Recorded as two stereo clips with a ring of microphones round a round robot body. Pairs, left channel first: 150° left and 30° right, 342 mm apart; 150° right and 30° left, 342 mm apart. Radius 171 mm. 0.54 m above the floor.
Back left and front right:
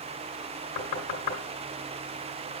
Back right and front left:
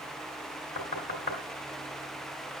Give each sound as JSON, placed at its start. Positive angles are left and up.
{"t": 0.8, "sound": "knocking", "azimuth_deg": 145, "distance_m": 3.0}